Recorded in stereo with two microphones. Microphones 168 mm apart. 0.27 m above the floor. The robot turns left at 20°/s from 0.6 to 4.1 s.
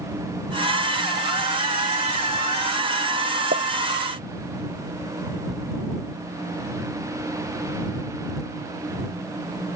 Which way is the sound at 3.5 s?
65° right (ahead or behind).